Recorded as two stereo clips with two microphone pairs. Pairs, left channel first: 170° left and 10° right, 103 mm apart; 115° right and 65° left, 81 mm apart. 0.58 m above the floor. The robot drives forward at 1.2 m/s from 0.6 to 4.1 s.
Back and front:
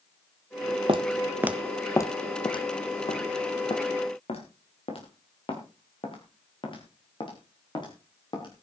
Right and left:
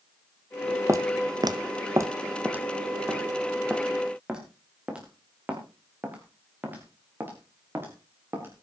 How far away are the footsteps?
About 1.1 m.